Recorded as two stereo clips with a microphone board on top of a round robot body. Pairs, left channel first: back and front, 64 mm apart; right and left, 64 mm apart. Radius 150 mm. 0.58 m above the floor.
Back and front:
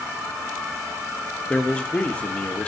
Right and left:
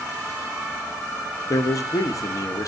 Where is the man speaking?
110° right, 1.3 m.